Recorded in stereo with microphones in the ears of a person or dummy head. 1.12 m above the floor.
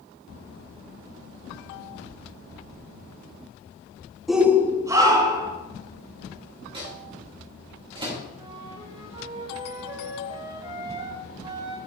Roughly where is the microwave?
Right.